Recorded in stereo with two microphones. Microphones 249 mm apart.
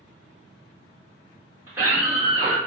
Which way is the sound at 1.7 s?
10° right (ahead or behind).